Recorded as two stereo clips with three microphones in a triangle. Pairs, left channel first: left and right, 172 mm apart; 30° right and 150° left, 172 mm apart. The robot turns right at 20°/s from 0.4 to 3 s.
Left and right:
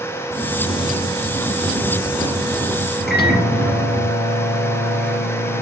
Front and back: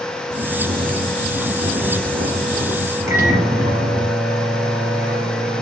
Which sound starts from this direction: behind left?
Snoring, at 0.3 s.